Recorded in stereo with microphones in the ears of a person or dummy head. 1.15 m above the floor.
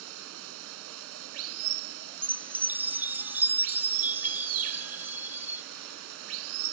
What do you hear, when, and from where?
0.0 s running water: 75° right (ahead or behind)
2.2 s a chime: 10° right (ahead or behind)